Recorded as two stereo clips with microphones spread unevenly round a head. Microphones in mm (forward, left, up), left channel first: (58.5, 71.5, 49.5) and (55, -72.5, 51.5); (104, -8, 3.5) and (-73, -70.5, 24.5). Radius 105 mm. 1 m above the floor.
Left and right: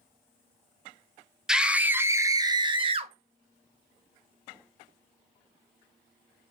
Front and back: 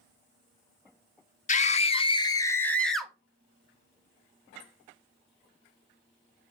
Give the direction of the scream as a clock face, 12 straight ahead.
12 o'clock.